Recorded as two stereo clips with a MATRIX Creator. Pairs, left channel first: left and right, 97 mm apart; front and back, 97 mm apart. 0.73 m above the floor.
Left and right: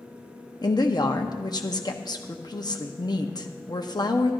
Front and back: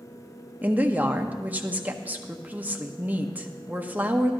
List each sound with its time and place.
0.6 s a woman speaking: 115° left, 0.8 m